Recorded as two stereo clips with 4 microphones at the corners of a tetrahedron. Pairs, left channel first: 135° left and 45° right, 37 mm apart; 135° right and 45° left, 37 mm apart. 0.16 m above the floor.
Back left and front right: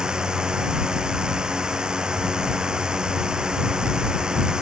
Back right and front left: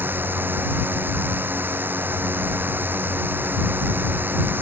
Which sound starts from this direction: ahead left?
A drone, at 0.0 s.